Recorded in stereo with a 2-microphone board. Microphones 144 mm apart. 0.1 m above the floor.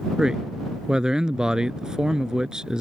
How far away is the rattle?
No rattle in this recording.